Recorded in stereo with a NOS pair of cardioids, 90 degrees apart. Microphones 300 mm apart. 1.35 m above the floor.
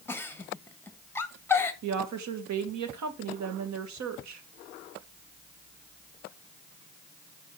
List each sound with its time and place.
0.1 s a giggle: 5° left, 1.1 m
1.8 s a woman speaking: 65° right, 1.6 m